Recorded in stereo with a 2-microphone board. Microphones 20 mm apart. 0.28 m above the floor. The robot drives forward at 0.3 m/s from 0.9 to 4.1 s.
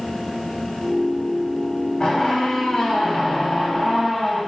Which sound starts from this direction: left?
A squeak, at 2.0 s.